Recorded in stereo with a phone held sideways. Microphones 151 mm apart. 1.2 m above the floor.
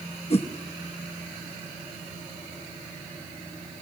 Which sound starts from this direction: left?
A whoosh, at 0.3 s.